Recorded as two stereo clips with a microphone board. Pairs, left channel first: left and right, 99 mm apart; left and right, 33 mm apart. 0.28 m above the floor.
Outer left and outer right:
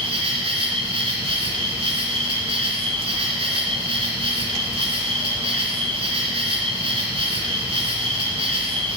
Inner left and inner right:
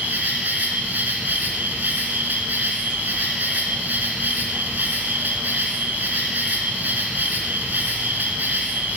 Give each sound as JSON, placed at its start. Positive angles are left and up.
{"t": 0.0, "sound": "an insect", "side_deg": -70, "distance_m": 3.0}